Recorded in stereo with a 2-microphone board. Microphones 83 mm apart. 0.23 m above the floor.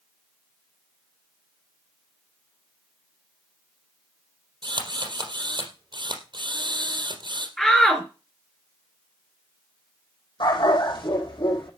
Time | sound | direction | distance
4.6 | a drill | 75° right (ahead or behind) | 3.5 m
7.6 | a shout | 10° left (ahead or behind) | 3 m
10.4 | a dog barking | 85° left | 4 m